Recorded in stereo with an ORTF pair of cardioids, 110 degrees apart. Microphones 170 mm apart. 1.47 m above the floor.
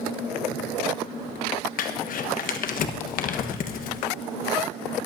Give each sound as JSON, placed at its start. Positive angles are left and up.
{"t": 1.8, "sound": "crumpling", "azimuth_deg": 55, "distance_m": 1.3}